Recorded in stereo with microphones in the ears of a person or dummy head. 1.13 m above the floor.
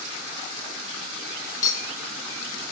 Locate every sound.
1.6 s a clink: 20° left (ahead or behind), 0.7 m